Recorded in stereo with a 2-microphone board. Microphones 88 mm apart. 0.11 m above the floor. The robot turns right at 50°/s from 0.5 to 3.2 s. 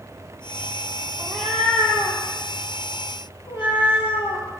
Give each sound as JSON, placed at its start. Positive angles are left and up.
{"t": 1.2, "sound": "a cat meowing", "azimuth_deg": -10, "distance_m": 0.8}